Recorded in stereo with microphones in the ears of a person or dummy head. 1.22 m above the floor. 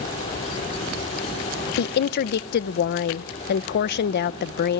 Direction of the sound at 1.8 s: 55° left (ahead or behind).